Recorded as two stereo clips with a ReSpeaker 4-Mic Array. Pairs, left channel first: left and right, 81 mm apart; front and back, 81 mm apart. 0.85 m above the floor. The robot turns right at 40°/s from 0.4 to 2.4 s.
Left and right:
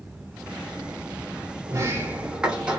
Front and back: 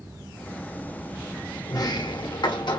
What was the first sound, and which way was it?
A sliding door, 40° right.